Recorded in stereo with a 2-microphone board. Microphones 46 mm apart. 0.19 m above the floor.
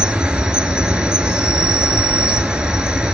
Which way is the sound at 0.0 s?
20° right (ahead or behind).